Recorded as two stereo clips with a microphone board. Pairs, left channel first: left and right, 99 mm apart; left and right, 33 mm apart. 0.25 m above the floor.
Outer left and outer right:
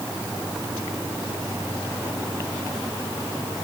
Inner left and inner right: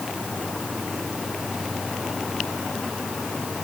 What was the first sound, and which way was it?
Only background noise.